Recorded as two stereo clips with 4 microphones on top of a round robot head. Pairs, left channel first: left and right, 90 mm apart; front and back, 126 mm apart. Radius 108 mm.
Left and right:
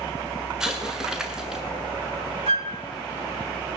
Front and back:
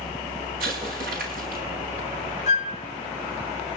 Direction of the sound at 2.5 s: 50° right.